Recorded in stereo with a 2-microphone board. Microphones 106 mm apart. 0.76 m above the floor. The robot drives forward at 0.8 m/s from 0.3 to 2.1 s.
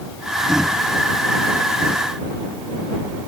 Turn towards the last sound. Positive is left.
No sound to turn to.